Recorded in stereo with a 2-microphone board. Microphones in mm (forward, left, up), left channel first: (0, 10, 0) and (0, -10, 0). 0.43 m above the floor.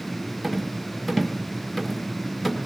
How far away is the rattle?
About 1.5 m.